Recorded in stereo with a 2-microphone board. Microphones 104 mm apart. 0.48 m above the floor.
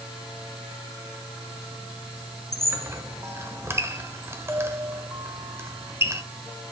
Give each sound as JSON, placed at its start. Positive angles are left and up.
{"t": 2.5, "sound": "a squeak", "side_deg": -25, "distance_m": 1.3}